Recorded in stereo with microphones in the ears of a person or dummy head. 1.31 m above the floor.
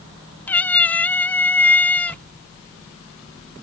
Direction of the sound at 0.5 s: 10° left (ahead or behind).